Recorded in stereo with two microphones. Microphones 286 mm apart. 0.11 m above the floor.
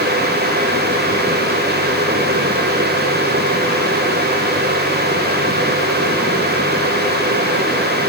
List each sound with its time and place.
Only background noise.